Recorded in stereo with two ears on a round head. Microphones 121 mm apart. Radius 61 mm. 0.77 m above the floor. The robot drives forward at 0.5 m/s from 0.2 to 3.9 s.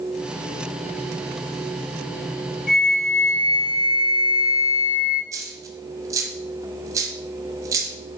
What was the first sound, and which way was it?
A flute, 70° left (ahead or behind).